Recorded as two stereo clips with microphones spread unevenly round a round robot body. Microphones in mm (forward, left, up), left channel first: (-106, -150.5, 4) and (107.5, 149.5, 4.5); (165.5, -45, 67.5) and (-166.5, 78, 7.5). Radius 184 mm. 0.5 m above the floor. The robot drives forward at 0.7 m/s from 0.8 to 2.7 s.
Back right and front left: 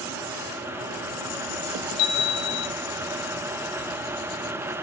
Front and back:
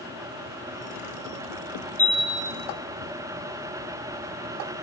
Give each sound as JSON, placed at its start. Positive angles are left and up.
{"t": 2.0, "sound": "a chime", "azimuth_deg": -110, "distance_m": 1.7}